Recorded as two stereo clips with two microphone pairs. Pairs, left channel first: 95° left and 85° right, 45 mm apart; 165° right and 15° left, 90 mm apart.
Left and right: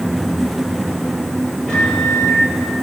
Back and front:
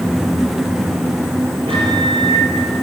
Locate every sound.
1.7 s a microwave: 20° left, 7 m